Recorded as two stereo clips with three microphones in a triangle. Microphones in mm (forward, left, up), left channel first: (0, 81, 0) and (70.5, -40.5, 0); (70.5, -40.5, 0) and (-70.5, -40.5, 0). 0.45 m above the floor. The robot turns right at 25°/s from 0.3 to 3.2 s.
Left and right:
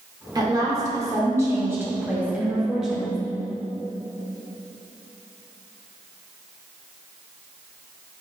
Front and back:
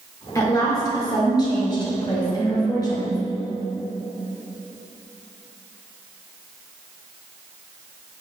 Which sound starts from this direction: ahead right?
A woman speaking, at 0.3 s.